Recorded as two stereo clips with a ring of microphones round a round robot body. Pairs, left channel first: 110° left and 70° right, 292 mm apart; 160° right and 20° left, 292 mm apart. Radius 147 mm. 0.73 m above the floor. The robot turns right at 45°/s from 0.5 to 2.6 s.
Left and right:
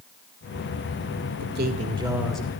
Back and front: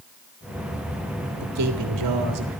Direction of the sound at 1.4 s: 10° right.